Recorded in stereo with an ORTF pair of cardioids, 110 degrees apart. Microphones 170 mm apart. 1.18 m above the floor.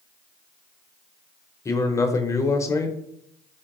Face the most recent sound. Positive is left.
turn(degrees=20)